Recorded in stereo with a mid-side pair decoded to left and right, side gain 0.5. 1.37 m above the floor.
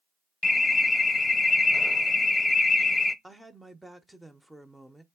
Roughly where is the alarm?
Ahead.